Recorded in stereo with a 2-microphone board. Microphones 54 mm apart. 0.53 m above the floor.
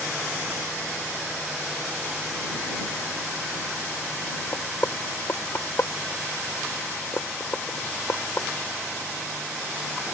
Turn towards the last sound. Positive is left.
turn(degrees=55)  # may be behind; listen again after turning